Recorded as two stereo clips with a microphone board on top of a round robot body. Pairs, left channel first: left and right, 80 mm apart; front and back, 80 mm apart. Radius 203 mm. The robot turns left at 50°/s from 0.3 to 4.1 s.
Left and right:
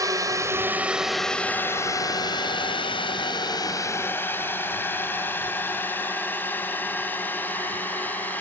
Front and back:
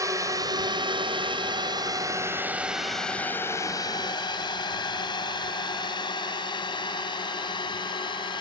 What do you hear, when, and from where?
0.0 s a drone: 135° right; by 8.4 s 20° left